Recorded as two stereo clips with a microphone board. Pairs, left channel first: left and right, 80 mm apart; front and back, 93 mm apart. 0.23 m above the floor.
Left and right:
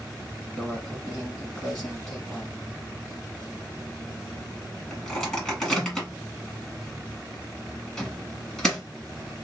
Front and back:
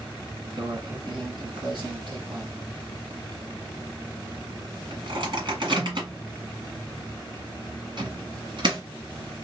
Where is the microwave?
170° left, 1.5 m.